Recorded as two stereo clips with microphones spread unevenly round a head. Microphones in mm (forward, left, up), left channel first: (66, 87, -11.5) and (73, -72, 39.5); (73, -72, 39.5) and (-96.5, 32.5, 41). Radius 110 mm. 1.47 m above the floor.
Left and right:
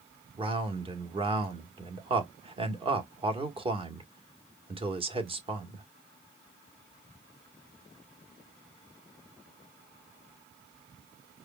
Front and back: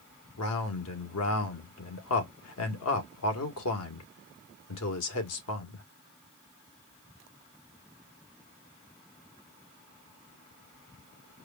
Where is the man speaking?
35° right, 1.7 m.